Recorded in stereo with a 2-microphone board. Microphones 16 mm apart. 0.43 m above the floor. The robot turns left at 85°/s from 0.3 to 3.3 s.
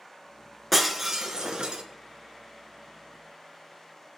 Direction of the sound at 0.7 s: 5° left.